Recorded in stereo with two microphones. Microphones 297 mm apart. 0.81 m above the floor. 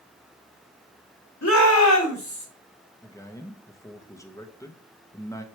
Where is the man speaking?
10° left (ahead or behind), 1.0 m.